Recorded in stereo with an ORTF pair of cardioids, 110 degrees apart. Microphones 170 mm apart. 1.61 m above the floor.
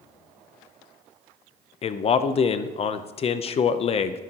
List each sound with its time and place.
1.8 s a man speaking: 40° left, 0.6 m